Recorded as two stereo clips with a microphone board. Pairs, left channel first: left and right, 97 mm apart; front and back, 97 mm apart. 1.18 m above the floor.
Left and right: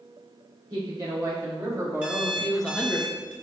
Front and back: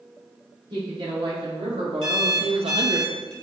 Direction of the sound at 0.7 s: 140° right.